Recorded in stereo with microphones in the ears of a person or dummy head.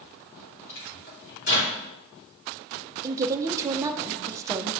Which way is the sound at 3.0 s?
20° right (ahead or behind).